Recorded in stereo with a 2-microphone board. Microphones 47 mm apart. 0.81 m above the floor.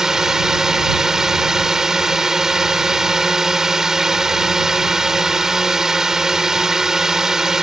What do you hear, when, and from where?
0.0 s a drone: 10° right (ahead or behind)